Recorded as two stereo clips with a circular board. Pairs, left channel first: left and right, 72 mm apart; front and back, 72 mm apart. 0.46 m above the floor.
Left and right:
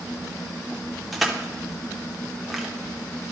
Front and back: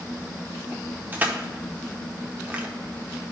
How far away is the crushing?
About 0.8 m.